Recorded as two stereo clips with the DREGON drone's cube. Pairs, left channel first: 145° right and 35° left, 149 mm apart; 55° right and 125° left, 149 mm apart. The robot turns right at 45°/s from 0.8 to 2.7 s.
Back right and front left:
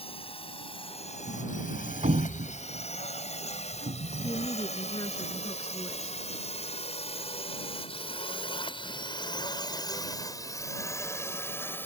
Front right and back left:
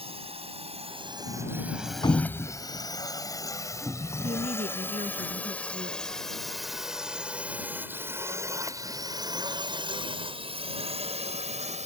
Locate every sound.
0.0 s a drone: 170° left; by 11.9 s 140° left
1.3 s a sliding door: 35° right; by 4.5 s 30° left
4.2 s a woman speaking: 155° left